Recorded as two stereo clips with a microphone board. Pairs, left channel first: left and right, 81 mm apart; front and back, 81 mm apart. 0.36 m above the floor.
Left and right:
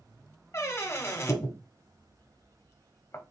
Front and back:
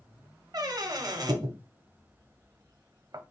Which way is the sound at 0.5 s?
145° left.